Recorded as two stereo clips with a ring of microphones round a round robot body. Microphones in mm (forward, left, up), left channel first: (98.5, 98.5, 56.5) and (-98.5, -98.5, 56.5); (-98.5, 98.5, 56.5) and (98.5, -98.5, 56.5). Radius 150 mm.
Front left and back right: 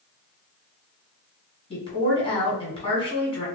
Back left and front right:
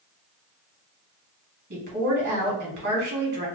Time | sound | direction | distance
1.7 | a woman speaking | 15° right | 1.7 m